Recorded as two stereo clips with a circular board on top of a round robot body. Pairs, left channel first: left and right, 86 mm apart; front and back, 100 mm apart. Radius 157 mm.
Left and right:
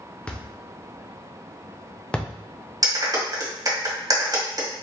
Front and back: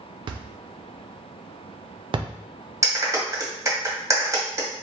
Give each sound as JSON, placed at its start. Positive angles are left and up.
{"t": 0.3, "sound": "a thud", "azimuth_deg": 165, "distance_m": 0.7}
{"t": 2.8, "sound": "a clap", "azimuth_deg": -130, "distance_m": 1.6}